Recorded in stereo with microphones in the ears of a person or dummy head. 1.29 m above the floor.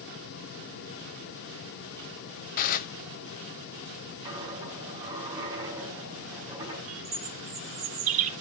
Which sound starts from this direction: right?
A bird, at 6.9 s.